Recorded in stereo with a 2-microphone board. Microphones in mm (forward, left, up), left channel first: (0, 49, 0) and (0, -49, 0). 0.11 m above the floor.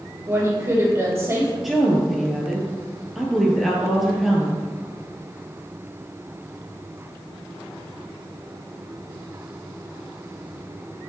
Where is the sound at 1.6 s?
Centre (ahead or behind), 1.9 m.